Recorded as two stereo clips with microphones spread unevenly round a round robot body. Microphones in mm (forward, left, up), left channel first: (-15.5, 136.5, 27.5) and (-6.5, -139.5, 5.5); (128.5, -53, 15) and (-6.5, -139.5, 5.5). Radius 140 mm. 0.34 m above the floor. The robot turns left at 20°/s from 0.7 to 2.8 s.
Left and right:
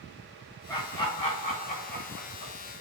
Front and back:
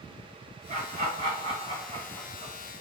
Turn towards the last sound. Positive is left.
turn(degrees=130)